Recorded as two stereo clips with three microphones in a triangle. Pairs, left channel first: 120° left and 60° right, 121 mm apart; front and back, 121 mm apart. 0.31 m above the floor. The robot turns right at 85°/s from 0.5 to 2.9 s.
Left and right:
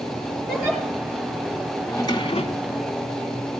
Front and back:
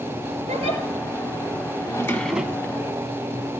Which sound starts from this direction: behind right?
A giggle, at 0.5 s.